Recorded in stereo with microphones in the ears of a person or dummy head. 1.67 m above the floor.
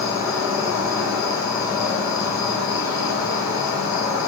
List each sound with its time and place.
0.0 s an insect: 15° right (ahead or behind), 1.4 m